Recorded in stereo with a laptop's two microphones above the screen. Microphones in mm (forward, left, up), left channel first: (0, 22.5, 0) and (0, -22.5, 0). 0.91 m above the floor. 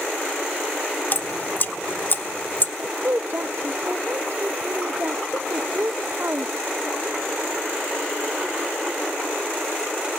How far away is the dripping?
About 0.9 m.